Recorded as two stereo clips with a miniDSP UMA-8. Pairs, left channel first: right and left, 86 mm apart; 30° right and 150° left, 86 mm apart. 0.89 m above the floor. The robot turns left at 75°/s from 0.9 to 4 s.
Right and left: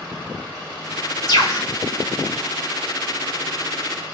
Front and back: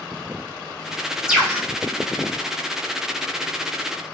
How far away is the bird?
About 2 m.